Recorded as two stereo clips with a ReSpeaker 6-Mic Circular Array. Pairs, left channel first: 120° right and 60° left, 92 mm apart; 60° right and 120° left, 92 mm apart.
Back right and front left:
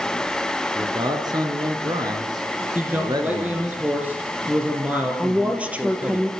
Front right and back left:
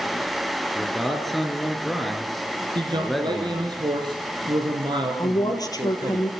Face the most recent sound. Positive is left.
turn(degrees=-15)